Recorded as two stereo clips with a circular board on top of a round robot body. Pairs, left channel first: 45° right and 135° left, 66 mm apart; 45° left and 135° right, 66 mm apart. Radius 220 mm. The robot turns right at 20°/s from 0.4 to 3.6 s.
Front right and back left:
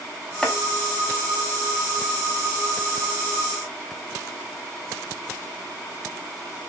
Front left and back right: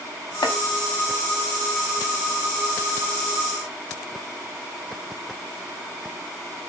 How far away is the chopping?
About 1.2 m.